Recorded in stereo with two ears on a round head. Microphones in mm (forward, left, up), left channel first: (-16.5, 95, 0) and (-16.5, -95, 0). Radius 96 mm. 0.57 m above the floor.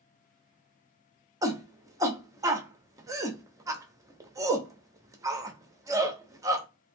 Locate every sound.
1.4 s a shout: 15° right (ahead or behind), 0.7 m